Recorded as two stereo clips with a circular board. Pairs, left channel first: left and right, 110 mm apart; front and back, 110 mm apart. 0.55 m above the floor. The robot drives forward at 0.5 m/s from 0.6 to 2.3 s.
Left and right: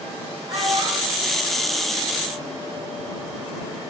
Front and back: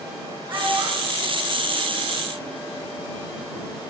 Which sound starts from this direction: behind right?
A child speaking, at 0.5 s.